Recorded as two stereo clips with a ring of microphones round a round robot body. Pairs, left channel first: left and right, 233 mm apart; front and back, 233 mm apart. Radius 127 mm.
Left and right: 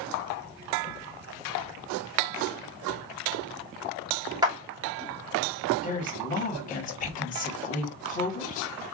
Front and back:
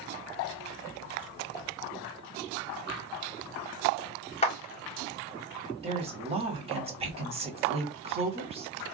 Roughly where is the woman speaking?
Behind left.